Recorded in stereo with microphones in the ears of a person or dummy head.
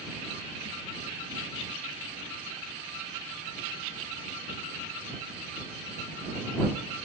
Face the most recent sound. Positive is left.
No sound to turn to.